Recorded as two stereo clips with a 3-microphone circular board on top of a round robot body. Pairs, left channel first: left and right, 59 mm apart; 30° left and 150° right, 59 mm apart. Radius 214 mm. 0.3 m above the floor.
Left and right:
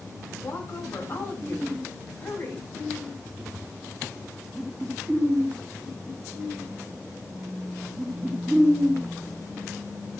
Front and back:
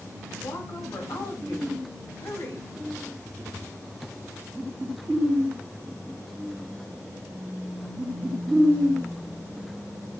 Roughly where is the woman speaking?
Ahead left.